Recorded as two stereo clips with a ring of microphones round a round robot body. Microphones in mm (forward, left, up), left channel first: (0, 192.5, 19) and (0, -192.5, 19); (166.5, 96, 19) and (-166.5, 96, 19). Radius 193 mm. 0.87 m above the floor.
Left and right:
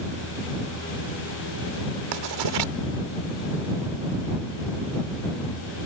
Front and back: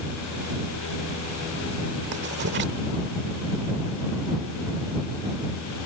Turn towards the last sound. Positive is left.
turn(degrees=-115)